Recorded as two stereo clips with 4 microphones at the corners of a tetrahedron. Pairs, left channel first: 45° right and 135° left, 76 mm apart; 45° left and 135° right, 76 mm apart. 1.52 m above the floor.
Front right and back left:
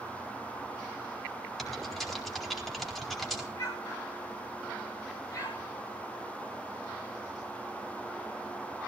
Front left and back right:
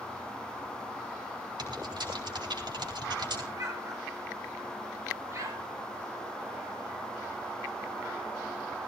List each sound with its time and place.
1.6 s typing on a keyboard: 135° right, 4 m
3.5 s an explosion: 90° right, 5.5 m